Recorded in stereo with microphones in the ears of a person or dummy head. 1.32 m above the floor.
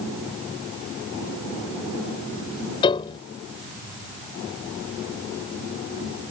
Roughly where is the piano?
Left.